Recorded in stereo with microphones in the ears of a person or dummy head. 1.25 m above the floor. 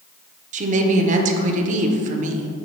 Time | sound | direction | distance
0.5 | a woman speaking | 50° right (ahead or behind) | 1.0 m